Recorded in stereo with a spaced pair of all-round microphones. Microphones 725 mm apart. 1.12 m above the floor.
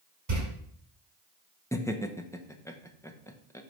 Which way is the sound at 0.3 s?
70° right (ahead or behind).